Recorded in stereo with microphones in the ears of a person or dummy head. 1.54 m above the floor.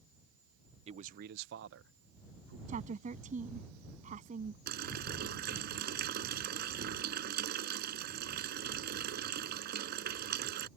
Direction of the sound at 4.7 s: 60° right (ahead or behind).